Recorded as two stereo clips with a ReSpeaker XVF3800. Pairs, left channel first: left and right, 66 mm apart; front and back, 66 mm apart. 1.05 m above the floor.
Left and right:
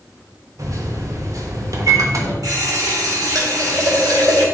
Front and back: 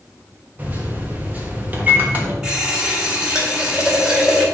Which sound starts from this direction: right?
A running tap, at 2.4 s.